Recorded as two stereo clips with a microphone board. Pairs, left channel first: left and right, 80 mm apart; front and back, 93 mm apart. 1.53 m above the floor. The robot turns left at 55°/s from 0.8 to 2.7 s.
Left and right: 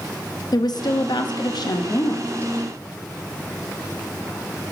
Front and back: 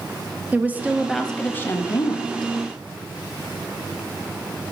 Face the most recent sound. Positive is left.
turn(degrees=5)